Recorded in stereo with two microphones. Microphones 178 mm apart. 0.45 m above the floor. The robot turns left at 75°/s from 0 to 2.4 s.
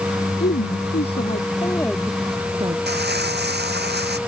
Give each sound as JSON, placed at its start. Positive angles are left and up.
{"t": 0.4, "sound": "a woman speaking", "azimuth_deg": 120}
{"t": 2.9, "sound": "crumpling", "side_deg": -70}